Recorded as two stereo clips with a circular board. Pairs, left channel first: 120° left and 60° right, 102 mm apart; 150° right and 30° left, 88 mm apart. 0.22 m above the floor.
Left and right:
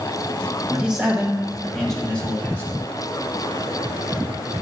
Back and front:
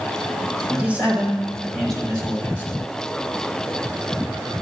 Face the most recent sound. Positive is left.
turn(degrees=175)